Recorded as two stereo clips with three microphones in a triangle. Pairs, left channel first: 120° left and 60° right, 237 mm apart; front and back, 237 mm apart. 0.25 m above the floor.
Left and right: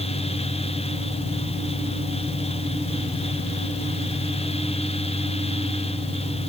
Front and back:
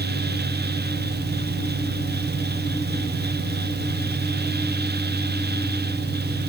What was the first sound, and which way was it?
Only background noise.